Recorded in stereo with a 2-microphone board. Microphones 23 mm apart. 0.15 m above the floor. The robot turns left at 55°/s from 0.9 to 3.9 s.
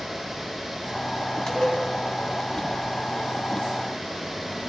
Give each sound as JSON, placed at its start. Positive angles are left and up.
{"t": 1.5, "sound": "dishes clattering", "side_deg": 25, "distance_m": 2.5}